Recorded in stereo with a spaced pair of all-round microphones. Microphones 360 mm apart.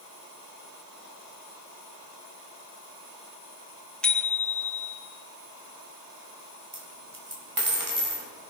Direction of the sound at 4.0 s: 5° left (ahead or behind).